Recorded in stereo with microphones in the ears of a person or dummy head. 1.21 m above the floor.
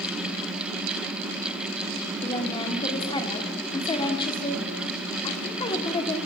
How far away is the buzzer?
No buzzer in this recording.